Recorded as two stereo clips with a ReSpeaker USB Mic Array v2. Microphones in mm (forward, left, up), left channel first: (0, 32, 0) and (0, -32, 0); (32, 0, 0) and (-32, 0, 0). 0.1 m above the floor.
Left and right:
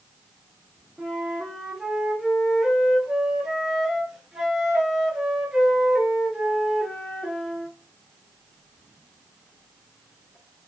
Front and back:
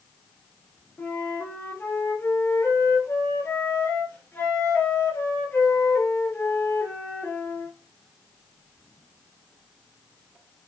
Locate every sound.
1.0 s a flute: 20° right, 1.8 m